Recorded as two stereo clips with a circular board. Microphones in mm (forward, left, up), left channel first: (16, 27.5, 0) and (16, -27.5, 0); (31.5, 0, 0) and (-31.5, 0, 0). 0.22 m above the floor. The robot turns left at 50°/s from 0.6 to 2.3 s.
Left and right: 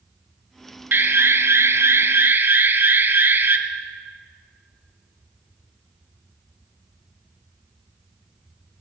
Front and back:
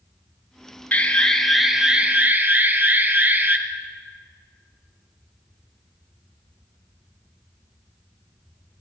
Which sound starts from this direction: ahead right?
An alarm, at 0.9 s.